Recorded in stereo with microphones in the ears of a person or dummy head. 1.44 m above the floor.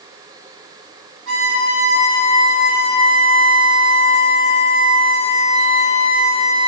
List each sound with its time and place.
1.3 s a violin: 65° right (ahead or behind), 3 m